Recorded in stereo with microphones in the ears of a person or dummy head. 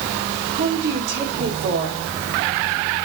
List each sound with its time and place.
0.6 s a woman speaking: 55° right (ahead or behind), 4 m